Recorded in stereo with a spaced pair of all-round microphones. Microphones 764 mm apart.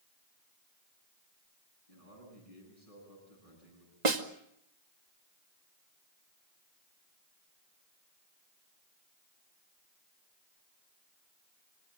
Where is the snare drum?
60° right (ahead or behind), 1.6 m.